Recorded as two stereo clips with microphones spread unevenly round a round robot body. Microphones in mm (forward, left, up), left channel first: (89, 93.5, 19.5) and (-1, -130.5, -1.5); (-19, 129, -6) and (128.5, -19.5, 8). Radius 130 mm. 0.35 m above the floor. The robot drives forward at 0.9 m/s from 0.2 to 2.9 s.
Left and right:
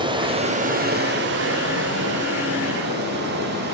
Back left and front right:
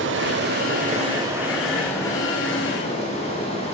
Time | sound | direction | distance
0.0 | running water | 50° right | 1.1 m